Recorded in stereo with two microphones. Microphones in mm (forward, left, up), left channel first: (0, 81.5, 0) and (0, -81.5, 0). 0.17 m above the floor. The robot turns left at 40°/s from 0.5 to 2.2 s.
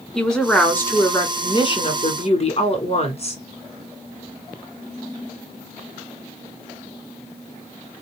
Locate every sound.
0.1 s a woman speaking: 175° left, 1.8 m; by 3.4 s 105° left, 1.8 m